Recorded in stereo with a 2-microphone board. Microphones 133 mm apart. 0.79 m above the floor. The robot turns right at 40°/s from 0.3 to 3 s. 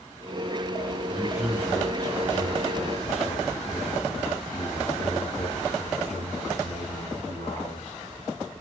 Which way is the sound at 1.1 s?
30° right.